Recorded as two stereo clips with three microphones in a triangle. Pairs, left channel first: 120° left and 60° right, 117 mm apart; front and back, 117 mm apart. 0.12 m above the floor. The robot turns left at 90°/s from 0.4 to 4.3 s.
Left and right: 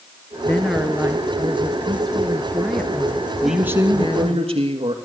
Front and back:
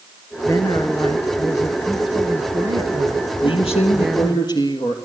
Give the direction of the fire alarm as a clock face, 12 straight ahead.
No fire alarm in this recording.